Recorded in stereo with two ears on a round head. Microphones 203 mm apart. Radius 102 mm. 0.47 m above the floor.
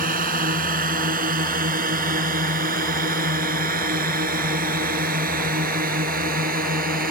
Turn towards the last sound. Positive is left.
turn(degrees=-40)  # may be behind; listen again after turning